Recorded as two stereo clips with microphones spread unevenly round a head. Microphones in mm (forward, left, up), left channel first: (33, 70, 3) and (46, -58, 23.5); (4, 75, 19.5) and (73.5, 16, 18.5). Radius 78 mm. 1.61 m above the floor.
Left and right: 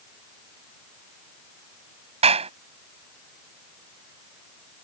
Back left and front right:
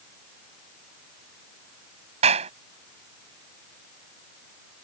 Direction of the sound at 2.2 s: 45° right.